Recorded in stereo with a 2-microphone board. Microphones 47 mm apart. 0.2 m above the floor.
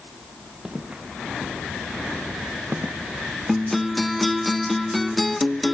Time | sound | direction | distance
0.7 | footsteps | 15° right (ahead or behind) | 4 m
3.5 | a guitar | centre (ahead or behind) | 0.6 m